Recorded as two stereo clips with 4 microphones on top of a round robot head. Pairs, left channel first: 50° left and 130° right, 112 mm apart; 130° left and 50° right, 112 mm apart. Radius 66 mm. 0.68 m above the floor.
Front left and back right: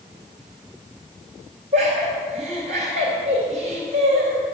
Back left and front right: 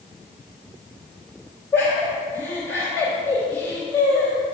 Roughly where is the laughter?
Behind right.